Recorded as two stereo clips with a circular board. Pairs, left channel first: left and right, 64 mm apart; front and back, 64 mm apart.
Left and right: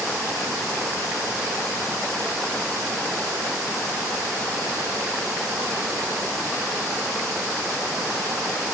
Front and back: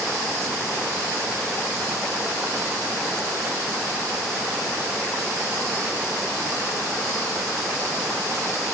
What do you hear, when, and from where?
Only background noise.